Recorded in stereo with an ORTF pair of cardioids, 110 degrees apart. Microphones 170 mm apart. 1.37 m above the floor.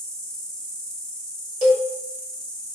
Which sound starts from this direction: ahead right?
A cowbell, at 1.6 s.